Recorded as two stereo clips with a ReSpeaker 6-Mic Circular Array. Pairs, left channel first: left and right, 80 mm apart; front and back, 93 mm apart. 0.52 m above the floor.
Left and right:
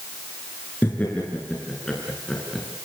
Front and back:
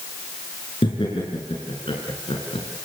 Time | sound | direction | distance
0.8 | laughter | 25° left | 6.5 m